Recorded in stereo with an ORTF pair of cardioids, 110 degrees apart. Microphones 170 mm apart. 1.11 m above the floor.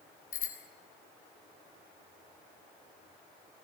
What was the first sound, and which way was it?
A bicycle bell, 50° left.